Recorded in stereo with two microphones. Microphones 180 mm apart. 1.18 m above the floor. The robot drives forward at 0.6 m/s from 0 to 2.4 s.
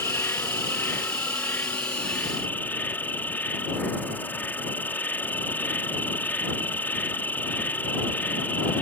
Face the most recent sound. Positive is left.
turn(degrees=10)  # may be behind; listen again after turning